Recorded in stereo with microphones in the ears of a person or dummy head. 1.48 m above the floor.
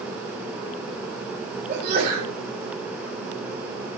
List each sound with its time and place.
1.7 s a sneeze: 40° right (ahead or behind), 4.5 m